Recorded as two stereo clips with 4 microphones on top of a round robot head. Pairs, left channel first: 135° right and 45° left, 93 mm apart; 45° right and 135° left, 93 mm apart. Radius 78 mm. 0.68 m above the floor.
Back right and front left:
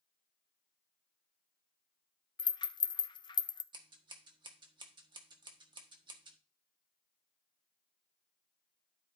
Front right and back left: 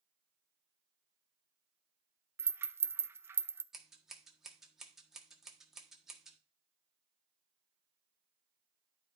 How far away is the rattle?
About 0.5 m.